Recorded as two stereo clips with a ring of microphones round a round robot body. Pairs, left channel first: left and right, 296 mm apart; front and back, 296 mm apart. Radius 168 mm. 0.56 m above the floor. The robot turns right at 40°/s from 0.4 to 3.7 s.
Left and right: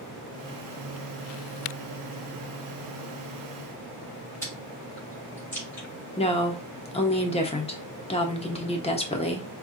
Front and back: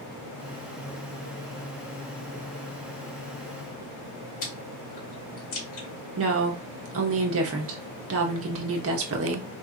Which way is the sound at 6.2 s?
155° left.